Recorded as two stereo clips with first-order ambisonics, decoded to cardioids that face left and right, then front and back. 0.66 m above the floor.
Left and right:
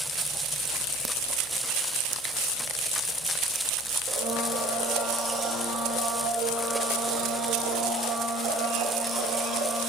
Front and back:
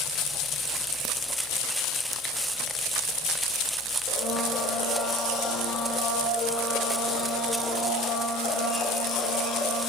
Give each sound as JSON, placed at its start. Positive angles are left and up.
{"t": 4.1, "sound": "a blender", "azimuth_deg": -35, "distance_m": 1.2}